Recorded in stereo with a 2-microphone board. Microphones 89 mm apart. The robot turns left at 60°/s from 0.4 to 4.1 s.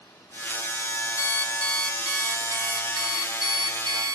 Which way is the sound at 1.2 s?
45° left.